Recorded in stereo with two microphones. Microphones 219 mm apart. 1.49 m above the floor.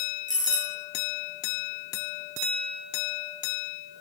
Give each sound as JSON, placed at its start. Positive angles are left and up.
{"t": 0.3, "sound": "a doorbell", "side_deg": -35, "distance_m": 1.8}